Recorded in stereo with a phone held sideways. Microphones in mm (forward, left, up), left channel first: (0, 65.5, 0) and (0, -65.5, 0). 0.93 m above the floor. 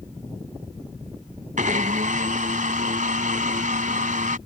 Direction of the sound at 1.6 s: 75° right (ahead or behind).